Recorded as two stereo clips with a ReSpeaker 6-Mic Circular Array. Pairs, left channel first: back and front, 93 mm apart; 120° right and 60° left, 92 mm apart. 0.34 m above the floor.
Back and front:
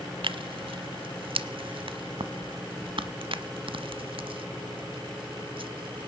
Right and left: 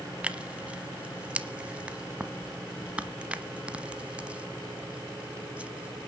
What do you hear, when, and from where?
0.2 s tearing paper: 15° right, 1.0 m